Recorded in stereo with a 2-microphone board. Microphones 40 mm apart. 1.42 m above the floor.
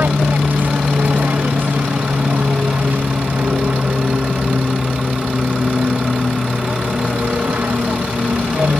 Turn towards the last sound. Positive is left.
turn(degrees=-55)  # may be behind; listen again after turning